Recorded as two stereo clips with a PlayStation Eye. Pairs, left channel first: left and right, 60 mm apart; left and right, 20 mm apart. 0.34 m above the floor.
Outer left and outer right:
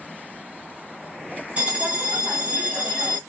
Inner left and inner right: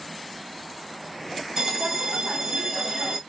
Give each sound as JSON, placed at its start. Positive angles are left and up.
{"t": 1.6, "sound": "a bell", "side_deg": -20, "distance_m": 2.0}